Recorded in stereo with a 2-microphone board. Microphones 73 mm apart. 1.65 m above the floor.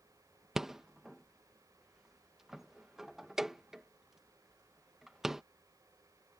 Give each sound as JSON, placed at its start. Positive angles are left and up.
{"t": 0.6, "sound": "a rattle", "side_deg": -5}